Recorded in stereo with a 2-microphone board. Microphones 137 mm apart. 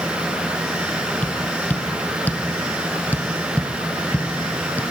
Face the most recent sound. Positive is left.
turn(degrees=10)  # may be behind; listen again after turning